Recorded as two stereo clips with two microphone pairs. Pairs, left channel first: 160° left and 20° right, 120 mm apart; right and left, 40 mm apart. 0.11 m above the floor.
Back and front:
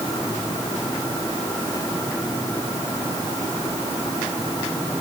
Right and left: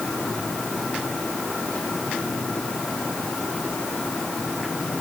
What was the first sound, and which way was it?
Only background noise.